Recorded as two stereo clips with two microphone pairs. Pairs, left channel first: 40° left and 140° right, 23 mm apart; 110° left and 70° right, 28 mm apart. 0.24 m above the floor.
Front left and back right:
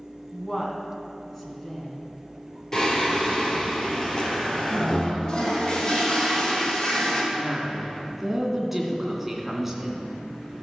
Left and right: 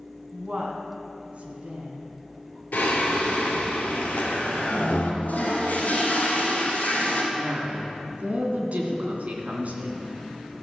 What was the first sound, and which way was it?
A woman speaking, 35° right.